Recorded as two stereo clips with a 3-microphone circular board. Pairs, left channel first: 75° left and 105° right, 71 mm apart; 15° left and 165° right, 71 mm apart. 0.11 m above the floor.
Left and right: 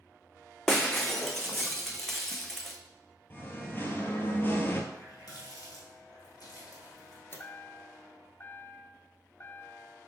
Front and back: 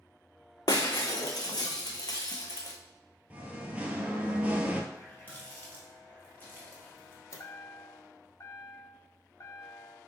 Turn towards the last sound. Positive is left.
turn(degrees=30)